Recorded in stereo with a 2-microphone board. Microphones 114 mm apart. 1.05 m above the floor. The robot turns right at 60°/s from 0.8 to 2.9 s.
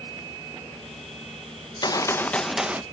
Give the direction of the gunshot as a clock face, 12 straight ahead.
8 o'clock.